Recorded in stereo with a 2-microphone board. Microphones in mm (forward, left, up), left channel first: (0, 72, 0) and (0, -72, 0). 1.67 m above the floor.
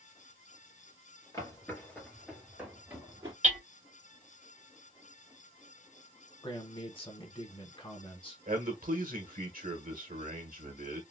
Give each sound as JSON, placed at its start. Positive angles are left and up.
{"t": 1.3, "sound": "footsteps", "side_deg": 25, "distance_m": 1.8}
{"t": 3.4, "sound": "hammering", "side_deg": -65, "distance_m": 1.7}
{"t": 6.4, "sound": "a man speaking", "side_deg": 35, "distance_m": 1.2}
{"t": 8.5, "sound": "a man speaking", "side_deg": -80, "distance_m": 1.2}